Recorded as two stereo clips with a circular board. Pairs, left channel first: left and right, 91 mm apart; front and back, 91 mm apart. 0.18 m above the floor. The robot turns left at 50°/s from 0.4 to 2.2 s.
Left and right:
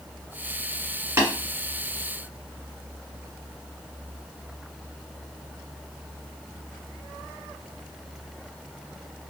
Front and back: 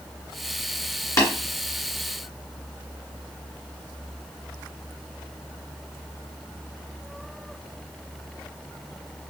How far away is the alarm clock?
No alarm clock in this recording.